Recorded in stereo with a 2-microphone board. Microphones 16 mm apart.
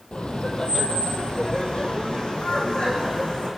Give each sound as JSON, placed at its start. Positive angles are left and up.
{"t": 0.1, "sound": "laughter", "side_deg": 70, "distance_m": 3.5}